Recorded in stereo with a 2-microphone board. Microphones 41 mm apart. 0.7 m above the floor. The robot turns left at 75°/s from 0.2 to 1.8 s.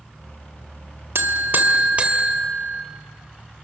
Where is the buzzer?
100° right, 2.5 m; by 2.8 s 150° right, 2.5 m.